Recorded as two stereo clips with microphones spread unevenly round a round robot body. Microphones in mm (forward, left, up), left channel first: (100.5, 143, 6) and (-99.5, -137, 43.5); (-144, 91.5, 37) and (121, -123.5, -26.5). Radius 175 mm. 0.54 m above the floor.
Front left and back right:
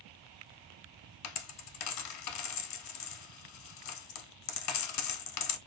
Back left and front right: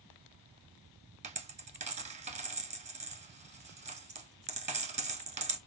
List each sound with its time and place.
1.2 s a dropped coin: 35° left, 0.7 m